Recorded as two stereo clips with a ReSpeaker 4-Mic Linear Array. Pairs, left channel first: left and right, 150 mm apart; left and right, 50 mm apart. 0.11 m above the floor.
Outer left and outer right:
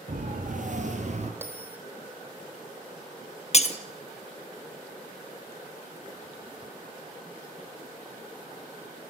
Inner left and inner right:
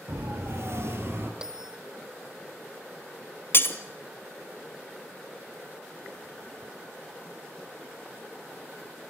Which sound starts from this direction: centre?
A bell, at 1.4 s.